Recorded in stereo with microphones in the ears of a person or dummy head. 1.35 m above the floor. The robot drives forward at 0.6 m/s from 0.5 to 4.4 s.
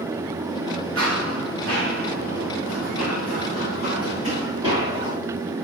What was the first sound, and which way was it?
Running footsteps, 75° right (ahead or behind).